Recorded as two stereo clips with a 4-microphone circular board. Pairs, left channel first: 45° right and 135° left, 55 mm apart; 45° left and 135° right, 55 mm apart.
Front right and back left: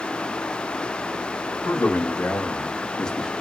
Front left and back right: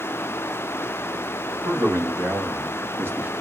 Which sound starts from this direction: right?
A man speaking, at 1.6 s.